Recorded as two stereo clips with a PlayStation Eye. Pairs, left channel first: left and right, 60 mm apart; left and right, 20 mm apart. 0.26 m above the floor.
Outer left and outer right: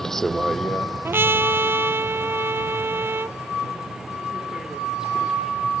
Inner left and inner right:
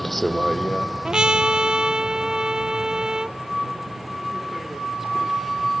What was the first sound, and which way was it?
A vehicle, 5° left (ahead or behind).